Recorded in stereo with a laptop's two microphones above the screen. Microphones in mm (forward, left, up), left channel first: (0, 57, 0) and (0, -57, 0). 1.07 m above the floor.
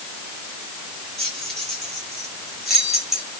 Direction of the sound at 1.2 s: 5° left (ahead or behind).